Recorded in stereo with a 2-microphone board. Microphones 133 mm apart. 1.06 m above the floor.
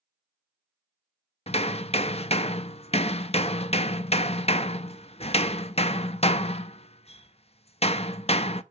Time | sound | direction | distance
1.5 | hammering | 50° left (ahead or behind) | 0.5 m